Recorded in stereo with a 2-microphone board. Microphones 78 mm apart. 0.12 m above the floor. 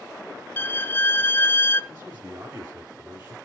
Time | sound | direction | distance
0.6 | a violin | 30° left (ahead or behind) | 0.7 m
1.9 | a man speaking | 25° right (ahead or behind) | 1.6 m